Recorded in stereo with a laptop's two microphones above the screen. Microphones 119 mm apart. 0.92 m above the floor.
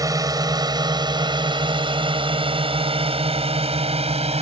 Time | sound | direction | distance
0.0 | a drone | 30° right (ahead or behind) | ?